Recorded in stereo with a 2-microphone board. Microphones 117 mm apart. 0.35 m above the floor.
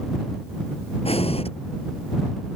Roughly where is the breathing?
Left.